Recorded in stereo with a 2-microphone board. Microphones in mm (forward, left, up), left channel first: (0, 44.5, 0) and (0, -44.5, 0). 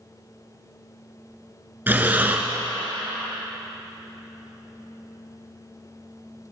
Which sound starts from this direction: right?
Breathing, at 1.9 s.